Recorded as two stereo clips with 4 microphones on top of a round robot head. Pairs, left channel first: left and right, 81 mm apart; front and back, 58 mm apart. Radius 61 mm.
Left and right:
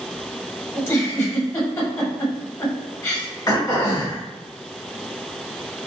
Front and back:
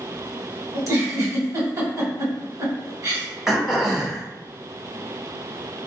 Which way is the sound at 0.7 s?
150° left.